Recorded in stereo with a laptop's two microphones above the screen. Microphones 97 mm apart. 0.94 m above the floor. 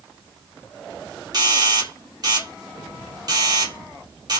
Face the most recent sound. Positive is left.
turn(degrees=-45)  # may be behind; listen again after turning